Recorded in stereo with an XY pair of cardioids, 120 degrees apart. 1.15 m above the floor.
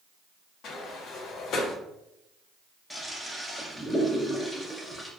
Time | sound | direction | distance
0.6 | a sliding door | 65° left | 0.6 m
2.9 | a toilet flushing | 10° left | 0.6 m